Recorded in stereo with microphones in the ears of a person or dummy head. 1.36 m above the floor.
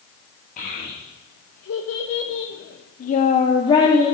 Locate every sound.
0.6 s a child speaking: 45° left (ahead or behind), 1.3 m; by 4.1 s 15° left (ahead or behind), 1.1 m